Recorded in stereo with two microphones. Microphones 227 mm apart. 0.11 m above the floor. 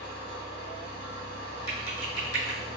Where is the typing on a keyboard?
20° left (ahead or behind), 1.5 m.